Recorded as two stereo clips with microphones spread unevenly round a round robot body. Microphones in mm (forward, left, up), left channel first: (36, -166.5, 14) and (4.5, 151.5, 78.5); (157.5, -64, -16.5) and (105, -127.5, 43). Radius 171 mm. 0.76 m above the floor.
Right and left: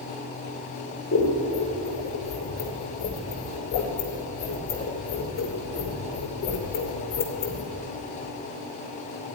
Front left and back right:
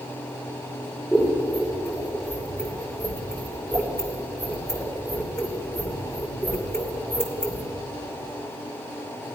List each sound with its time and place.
1.1 s scissors: 25° right, 2.5 m